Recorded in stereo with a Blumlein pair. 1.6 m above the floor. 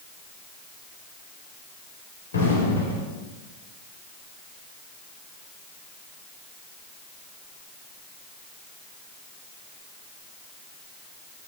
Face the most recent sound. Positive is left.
turn(degrees=65)